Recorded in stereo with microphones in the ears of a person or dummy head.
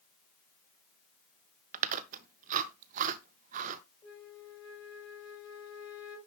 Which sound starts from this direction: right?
Chewing, at 1.7 s.